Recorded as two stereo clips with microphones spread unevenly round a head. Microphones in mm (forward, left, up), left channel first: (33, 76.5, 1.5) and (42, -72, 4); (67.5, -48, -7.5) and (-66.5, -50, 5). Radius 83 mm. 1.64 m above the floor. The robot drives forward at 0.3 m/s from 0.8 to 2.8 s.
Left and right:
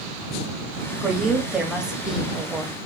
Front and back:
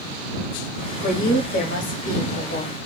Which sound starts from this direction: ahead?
A woman speaking, at 1.0 s.